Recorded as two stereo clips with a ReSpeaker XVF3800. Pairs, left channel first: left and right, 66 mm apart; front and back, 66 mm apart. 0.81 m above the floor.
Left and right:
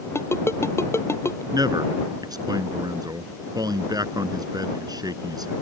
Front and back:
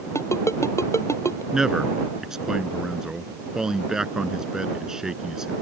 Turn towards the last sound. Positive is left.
turn(degrees=-100)